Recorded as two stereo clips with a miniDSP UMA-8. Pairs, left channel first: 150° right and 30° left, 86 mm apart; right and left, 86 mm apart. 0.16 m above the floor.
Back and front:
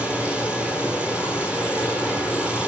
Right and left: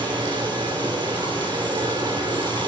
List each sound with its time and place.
0.0 s running water: 105° left, 1.6 m